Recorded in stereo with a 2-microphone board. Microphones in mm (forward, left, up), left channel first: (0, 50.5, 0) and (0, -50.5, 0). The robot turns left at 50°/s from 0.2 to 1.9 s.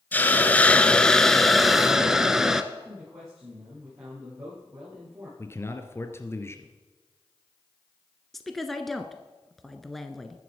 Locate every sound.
0.1 s a hiss: 20° left (ahead or behind), 0.8 m; by 2.6 s 5° right (ahead or behind), 0.8 m
2.7 s a man speaking: 30° right (ahead or behind), 9 m
5.4 s a man speaking: 25° left (ahead or behind), 1.5 m
8.3 s a woman speaking: 5° left (ahead or behind), 1.1 m